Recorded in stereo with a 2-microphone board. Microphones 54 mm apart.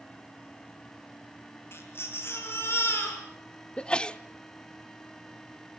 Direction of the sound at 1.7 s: 45° left (ahead or behind).